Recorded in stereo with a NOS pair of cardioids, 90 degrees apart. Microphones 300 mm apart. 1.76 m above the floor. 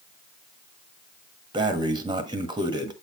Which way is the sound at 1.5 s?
15° right.